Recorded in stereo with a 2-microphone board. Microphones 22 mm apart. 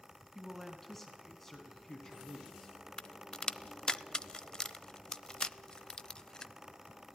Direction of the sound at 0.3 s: 10° left (ahead or behind).